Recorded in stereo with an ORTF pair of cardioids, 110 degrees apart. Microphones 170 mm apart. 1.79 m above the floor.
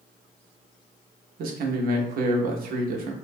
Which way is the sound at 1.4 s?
60° right.